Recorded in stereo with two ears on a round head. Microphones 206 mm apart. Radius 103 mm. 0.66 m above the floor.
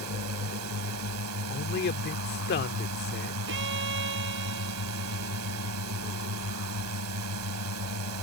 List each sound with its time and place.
0.0 s a drone: 80° right
1.5 s a man speaking: 45° left (ahead or behind)
3.5 s a violin: 55° right (ahead or behind)